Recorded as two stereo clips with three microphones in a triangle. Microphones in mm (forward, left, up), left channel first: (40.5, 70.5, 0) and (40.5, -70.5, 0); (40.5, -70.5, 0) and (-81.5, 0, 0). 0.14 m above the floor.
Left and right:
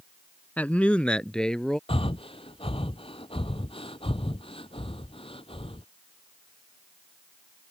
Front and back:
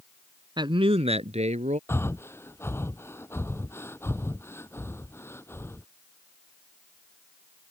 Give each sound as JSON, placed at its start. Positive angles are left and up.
{"t": 0.6, "sound": "a man speaking", "azimuth_deg": 160}
{"t": 1.9, "sound": "breathing", "azimuth_deg": 40}